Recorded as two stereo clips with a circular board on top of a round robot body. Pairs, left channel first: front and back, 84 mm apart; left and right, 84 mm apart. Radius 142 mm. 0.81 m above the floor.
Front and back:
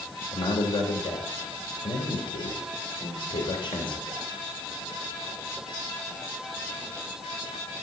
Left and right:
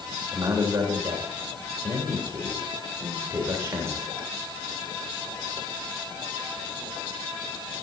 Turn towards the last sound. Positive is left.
turn(degrees=-30)